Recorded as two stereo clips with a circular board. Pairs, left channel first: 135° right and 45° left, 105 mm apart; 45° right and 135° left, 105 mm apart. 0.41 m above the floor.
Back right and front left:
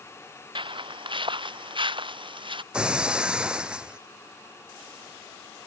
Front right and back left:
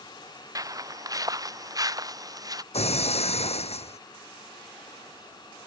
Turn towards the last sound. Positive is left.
turn(degrees=-35)